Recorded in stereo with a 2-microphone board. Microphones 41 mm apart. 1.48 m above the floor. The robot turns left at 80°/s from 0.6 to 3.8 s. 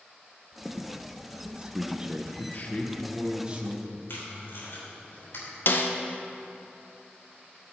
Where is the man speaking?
65° left, 1.1 m; by 4.0 s 50° right, 1.1 m.